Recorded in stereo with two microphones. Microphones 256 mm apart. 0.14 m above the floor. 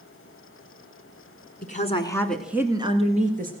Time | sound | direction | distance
1.6 | a woman speaking | 35° left (ahead or behind) | 1.7 m